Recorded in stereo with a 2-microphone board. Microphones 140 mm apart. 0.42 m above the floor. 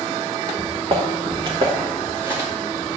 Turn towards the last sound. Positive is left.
turn(degrees=-15)  # may be behind; listen again after turning